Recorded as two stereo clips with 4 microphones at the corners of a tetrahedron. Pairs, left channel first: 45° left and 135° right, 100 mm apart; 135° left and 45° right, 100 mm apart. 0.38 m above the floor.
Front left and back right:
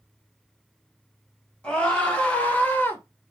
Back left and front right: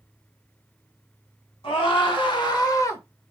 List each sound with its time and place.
1.6 s a scream: 125° left, 2 m; by 3.0 s 95° left, 1.1 m